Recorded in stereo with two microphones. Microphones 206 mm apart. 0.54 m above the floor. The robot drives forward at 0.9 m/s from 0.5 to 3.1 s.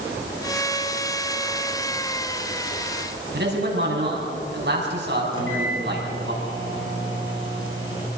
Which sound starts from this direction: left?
A microwave, at 5.3 s.